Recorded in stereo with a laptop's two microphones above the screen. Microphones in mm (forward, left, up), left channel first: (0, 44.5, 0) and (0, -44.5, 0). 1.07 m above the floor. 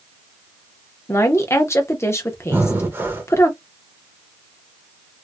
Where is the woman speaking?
30° left (ahead or behind), 0.6 m.